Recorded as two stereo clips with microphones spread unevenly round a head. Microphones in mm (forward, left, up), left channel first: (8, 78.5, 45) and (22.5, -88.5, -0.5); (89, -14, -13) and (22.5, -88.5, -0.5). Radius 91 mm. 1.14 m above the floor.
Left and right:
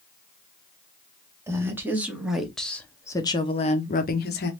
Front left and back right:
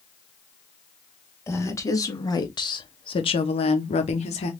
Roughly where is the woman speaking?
Ahead.